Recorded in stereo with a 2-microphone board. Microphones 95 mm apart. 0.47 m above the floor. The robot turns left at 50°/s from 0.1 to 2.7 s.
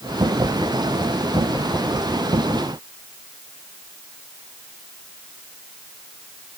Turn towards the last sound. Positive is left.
No sound to turn to.